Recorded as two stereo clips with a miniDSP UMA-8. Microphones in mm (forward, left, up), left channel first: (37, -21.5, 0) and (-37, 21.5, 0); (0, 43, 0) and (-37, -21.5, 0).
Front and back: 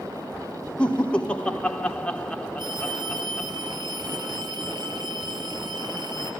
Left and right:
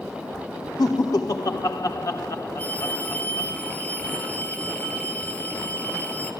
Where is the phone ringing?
125° left, 2.5 m.